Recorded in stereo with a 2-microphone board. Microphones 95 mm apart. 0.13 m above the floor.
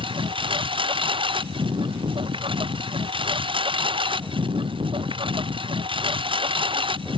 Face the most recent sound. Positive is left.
turn(degrees=-60)  # may be behind; listen again after turning